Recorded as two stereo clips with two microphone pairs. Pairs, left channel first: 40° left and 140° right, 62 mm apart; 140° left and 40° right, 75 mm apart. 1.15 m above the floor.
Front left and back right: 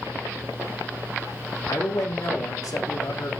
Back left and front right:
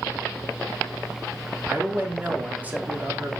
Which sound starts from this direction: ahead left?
A man speaking, at 1.7 s.